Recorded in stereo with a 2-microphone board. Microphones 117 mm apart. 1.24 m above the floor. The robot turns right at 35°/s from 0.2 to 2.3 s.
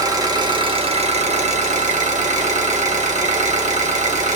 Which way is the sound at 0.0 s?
150° right.